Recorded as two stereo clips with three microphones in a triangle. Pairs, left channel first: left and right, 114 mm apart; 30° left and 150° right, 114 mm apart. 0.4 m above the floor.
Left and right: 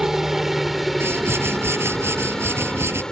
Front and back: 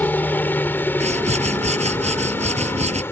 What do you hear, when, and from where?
0.0 s a helicopter: 10° right; by 3.1 s 20° left
1.0 s a whoosh: 160° right